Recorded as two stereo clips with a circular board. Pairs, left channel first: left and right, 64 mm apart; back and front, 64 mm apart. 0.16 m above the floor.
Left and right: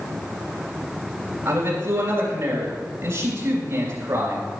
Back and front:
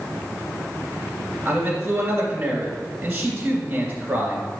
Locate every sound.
1.4 s a man speaking: 65° right, 2.5 m